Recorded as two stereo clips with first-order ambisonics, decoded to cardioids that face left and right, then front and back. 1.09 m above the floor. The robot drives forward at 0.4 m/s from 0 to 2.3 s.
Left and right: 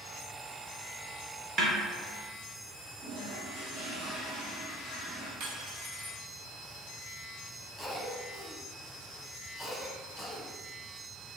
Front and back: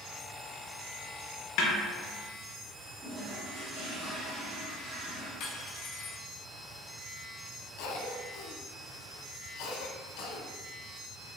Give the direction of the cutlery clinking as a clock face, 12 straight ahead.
2 o'clock.